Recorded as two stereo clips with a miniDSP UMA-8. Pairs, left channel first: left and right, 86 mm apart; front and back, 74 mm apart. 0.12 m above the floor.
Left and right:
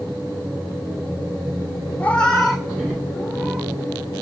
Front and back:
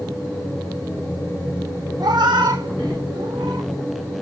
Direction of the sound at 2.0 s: 160° left.